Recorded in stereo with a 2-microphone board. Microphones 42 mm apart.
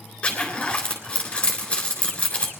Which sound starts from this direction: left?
A zipper, at 0.2 s.